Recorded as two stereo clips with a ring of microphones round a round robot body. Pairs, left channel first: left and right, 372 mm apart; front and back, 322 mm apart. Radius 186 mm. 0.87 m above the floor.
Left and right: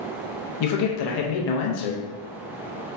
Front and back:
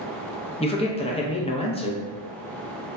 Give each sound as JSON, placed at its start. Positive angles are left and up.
{"t": 0.6, "sound": "a man speaking", "azimuth_deg": 70, "distance_m": 0.6}